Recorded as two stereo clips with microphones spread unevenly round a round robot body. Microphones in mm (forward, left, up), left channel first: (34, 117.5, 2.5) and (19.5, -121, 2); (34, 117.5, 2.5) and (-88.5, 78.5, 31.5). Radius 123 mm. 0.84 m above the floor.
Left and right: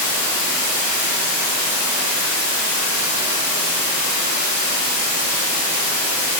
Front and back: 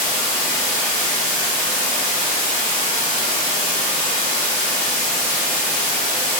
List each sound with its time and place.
0.0 s running water: 145° right, 1.5 m